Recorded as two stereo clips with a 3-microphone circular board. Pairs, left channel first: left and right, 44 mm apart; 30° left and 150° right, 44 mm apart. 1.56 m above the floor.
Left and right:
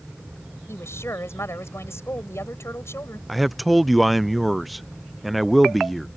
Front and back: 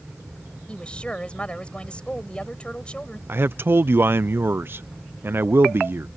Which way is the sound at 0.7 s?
95° left.